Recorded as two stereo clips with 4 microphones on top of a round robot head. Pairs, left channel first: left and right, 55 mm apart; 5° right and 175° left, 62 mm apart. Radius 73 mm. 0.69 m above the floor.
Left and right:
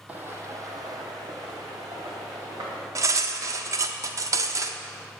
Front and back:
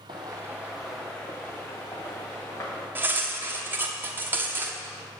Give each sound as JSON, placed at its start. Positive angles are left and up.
{"t": 0.1, "sound": "footsteps", "azimuth_deg": -155, "distance_m": 1.1}
{"t": 3.0, "sound": "cutlery clinking", "azimuth_deg": -120, "distance_m": 0.8}